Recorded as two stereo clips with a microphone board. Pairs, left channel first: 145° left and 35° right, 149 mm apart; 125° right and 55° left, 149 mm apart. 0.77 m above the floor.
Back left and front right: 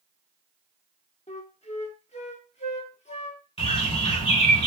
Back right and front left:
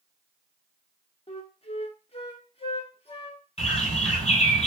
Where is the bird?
170° right, 2.5 m.